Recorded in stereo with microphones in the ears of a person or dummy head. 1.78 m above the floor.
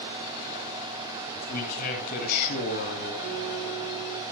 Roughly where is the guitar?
Left.